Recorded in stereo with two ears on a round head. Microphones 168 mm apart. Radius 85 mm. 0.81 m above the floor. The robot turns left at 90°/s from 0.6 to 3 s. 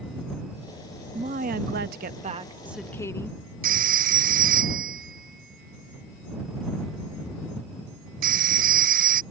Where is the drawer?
No drawer in this recording.